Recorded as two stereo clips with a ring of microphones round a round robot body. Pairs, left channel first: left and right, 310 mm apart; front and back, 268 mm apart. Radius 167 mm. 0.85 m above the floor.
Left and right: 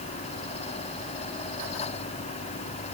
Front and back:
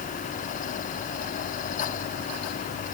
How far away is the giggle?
No giggle in this recording.